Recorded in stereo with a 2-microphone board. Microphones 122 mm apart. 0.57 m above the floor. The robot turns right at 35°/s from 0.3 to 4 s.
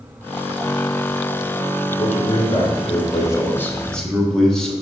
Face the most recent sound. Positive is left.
turn(degrees=175)